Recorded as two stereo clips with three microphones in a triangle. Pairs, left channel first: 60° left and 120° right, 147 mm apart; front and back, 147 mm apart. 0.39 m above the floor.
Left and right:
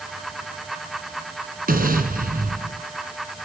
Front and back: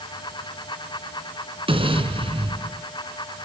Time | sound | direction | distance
1.7 | an explosion | 130° right | 4 m